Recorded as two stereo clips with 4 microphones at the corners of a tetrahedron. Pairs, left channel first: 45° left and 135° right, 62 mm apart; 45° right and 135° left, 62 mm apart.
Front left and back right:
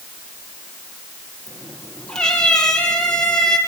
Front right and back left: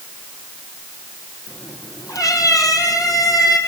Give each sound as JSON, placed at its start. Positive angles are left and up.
{"t": 1.5, "sound": "a cat meowing", "azimuth_deg": -30, "distance_m": 4.5}